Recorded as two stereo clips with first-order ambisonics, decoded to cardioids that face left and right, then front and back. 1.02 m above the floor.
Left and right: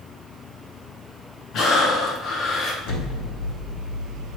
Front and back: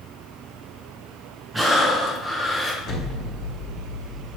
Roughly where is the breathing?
Left.